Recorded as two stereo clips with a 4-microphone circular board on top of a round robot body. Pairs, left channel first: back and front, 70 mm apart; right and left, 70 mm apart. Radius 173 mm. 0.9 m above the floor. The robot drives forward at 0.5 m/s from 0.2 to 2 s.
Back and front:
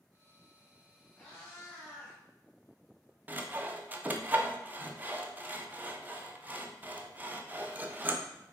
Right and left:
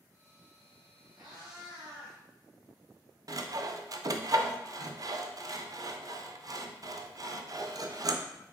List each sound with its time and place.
1.2 s a cat meowing: 110° left, 1.2 m; by 2.2 s 125° left, 1.4 m
3.3 s sawing: 60° left, 0.5 m